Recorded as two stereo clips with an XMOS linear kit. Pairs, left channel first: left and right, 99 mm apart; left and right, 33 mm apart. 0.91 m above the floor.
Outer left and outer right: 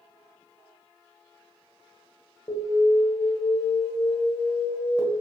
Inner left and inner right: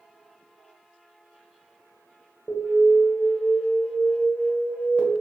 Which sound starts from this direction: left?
An alarm, at 2.5 s.